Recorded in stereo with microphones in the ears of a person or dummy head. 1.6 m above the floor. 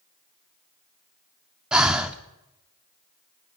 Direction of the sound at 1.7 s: Centre (ahead or behind).